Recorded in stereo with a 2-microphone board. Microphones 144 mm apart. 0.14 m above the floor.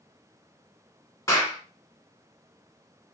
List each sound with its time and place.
1.3 s a clap: 20° left (ahead or behind), 1.0 m